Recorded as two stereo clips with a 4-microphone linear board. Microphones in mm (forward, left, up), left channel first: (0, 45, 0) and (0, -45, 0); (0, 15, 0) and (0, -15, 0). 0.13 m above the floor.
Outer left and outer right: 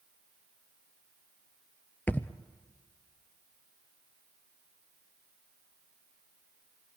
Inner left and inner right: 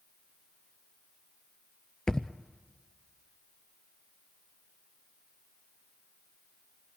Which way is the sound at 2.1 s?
20° left (ahead or behind).